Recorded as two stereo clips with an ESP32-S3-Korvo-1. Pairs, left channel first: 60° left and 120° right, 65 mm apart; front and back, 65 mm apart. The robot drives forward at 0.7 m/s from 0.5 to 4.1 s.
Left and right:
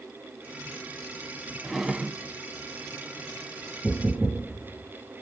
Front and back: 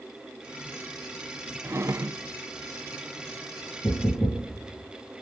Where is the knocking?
20° right, 3 m.